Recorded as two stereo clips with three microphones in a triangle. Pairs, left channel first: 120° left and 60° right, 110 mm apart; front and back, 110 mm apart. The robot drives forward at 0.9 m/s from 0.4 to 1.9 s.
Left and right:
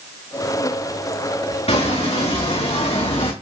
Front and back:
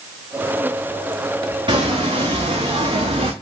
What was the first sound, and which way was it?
Footsteps, 140° left.